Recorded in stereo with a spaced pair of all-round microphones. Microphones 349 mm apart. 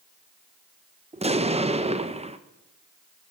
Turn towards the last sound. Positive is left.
turn(degrees=-20)  # may be behind; listen again after turning